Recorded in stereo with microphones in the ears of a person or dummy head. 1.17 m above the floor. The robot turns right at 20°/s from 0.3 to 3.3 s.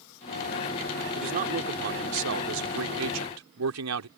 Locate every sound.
1.1 s a man speaking: 135° right; by 4.1 s 95° right